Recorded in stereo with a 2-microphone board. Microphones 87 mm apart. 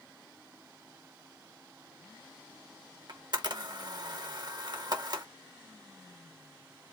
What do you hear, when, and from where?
3.1 s a camera shutter: 55° right (ahead or behind), 1.0 m